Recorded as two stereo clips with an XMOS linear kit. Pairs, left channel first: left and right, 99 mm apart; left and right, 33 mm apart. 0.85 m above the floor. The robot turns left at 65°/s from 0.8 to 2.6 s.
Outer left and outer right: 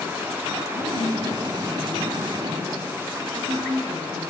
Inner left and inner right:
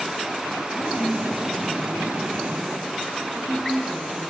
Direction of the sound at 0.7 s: 80° left.